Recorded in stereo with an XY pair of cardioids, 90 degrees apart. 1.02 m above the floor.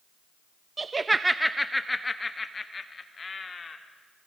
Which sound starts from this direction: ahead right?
Laughter, at 0.8 s.